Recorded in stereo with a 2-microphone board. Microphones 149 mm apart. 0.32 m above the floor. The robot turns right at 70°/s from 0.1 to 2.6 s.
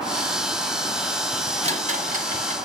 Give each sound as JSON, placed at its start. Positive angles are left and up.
{"t": 1.6, "sound": "a rattle", "side_deg": -45, "distance_m": 1.6}